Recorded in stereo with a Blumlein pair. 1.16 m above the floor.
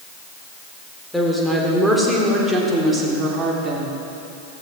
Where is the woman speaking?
Straight ahead, 3.5 m; by 4.0 s 20° right, 3 m.